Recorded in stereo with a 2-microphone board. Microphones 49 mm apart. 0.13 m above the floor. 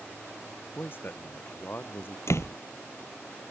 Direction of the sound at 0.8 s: 45° left (ahead or behind).